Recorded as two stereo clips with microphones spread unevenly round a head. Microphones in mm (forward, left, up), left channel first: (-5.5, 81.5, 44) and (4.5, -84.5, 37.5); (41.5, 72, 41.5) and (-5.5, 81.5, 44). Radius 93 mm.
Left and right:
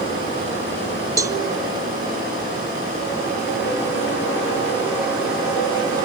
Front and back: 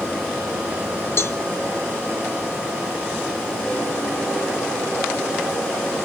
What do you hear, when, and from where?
1.2 s a cowbell: 20° right, 1.0 m